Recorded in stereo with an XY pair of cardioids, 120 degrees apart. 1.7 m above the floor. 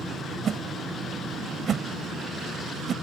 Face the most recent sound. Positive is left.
turn(degrees=-40)